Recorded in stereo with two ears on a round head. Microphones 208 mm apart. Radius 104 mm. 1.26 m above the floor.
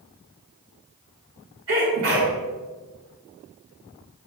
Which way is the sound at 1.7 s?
60° right (ahead or behind).